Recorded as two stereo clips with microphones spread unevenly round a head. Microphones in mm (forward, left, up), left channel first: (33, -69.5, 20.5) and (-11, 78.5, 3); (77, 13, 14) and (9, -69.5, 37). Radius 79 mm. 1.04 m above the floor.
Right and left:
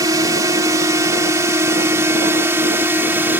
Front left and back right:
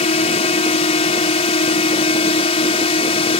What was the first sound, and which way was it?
A drone, 40° left.